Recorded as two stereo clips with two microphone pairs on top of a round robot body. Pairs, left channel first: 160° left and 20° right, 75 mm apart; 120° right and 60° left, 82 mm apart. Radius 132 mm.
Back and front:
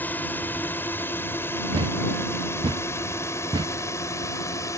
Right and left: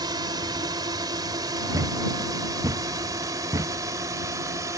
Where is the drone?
90° left; by 4.8 s 110° left.